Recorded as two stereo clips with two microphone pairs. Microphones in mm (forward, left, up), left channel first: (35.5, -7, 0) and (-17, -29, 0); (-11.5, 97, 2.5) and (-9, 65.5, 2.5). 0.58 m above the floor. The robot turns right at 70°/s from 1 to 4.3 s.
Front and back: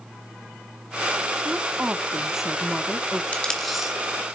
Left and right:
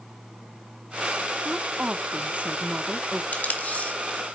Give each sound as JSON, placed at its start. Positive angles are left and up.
{"t": 1.4, "sound": "a woman speaking", "azimuth_deg": -140, "distance_m": 0.8}
{"t": 3.3, "sound": "tape being pulled", "azimuth_deg": 85, "distance_m": 1.8}